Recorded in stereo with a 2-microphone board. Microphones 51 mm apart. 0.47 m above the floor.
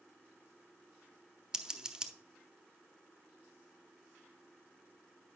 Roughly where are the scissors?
Centre.